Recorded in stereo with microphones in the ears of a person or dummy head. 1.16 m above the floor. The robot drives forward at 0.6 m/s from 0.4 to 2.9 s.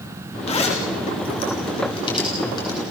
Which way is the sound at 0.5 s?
35° left (ahead or behind).